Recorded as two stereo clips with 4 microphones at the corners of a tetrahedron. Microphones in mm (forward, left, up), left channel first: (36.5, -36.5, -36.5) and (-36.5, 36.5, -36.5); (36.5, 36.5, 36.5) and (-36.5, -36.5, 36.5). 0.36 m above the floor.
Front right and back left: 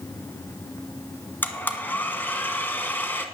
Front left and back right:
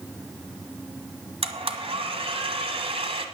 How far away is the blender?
About 1.2 m.